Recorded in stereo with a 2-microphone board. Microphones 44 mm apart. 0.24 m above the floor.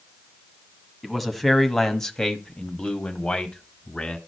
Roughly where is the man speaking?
Centre.